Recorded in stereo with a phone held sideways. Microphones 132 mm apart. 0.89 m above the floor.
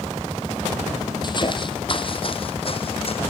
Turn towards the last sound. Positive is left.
turn(degrees=45)  # may be behind; listen again after turning